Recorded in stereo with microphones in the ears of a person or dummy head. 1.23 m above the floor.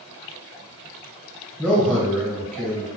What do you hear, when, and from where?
1.6 s a man speaking: 5° left (ahead or behind), 0.8 m